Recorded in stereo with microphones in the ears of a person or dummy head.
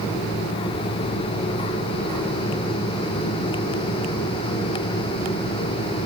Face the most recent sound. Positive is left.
No sound to turn to.